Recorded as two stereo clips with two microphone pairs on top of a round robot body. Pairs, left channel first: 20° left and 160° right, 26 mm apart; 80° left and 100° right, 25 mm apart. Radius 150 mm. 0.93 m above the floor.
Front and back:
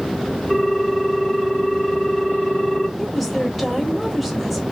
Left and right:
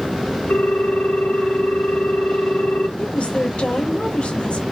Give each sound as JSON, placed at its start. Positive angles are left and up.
{"t": 0.5, "sound": "a ringtone", "azimuth_deg": 95, "distance_m": 1.6}
{"t": 3.0, "sound": "a woman speaking", "azimuth_deg": 105, "distance_m": 1.6}